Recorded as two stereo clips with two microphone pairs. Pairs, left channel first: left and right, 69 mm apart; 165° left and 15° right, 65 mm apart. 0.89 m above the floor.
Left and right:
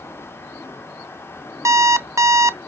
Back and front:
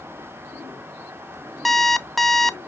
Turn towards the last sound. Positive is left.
turn(degrees=-115)